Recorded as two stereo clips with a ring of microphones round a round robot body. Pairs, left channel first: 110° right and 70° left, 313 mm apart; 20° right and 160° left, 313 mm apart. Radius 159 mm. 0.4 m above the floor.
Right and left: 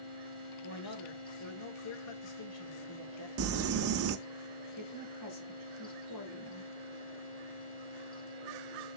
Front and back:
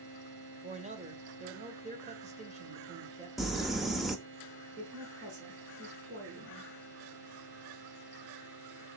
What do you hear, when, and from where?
0.6 s a man speaking: 135° right, 1.8 m
3.4 s crumpling: 70° left, 0.8 m
4.8 s a woman speaking: 145° right, 4 m